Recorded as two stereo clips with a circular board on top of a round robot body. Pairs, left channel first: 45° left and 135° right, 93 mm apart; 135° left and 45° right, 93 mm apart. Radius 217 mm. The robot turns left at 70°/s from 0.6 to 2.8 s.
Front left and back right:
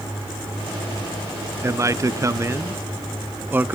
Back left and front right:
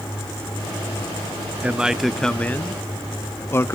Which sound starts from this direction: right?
A man speaking, at 1.6 s.